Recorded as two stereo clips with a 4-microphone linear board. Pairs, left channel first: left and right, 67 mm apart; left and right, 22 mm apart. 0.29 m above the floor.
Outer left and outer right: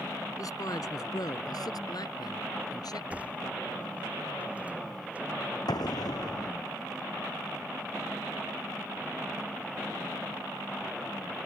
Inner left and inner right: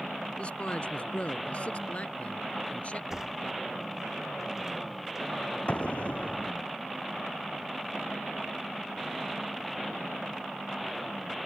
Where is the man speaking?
60° left (ahead or behind); by 3.0 s 70° left (ahead or behind).